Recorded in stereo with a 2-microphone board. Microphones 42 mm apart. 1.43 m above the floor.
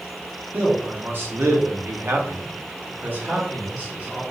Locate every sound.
0.5 s a man speaking: 50° right (ahead or behind), 1.1 m; by 4.2 s 30° right (ahead or behind), 1.6 m